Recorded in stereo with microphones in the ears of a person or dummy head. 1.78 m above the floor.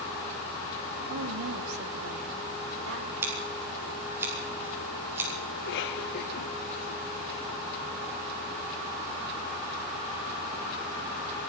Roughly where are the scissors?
Centre.